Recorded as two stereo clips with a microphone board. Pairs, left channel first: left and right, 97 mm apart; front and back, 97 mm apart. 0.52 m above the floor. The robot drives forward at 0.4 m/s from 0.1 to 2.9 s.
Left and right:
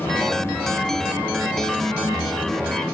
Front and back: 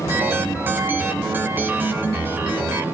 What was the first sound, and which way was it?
Only background noise.